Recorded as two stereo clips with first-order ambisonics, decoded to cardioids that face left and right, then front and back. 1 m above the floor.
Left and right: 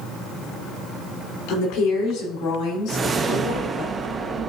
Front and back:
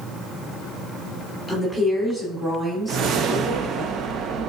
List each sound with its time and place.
1.5 s a woman speaking: 90° left, 3.5 m; by 3.9 s 115° left, 3 m
2.9 s a whoosh: 150° right, 0.6 m